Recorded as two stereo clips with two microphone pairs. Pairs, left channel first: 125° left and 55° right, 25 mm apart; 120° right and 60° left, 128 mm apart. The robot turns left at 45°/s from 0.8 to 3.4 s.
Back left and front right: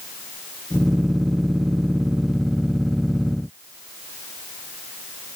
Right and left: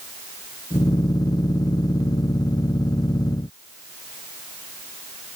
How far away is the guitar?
No guitar in this recording.